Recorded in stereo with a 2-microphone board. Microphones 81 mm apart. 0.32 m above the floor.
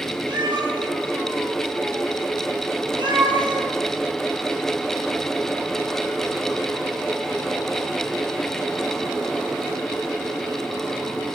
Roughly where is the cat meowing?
Right.